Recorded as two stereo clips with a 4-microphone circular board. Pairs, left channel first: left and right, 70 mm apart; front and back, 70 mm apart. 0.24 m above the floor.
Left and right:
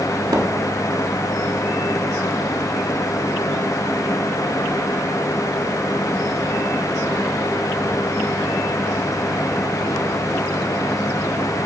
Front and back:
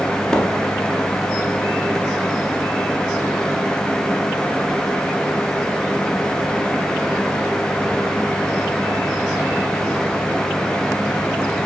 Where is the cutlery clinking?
I don't hear cutlery clinking.